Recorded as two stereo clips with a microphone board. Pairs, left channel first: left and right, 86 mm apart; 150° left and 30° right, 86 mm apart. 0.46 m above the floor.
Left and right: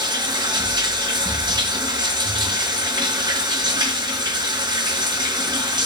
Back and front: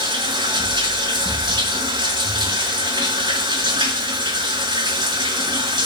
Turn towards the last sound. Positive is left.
turn(degrees=-60)